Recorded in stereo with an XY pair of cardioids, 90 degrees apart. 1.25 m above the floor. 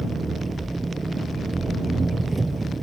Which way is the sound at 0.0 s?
25° right.